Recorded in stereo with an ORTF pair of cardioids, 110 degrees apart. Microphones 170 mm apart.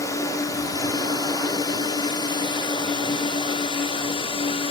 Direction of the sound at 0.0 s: 20° left.